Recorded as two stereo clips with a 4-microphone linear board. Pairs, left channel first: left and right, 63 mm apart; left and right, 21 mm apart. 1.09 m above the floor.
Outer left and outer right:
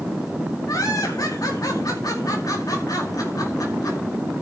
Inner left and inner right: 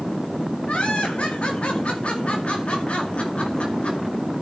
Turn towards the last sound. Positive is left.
turn(degrees=65)  # may be behind; listen again after turning